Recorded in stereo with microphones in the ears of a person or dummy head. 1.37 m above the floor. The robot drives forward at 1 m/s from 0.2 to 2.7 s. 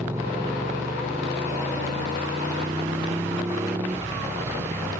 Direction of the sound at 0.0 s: 15° right (ahead or behind).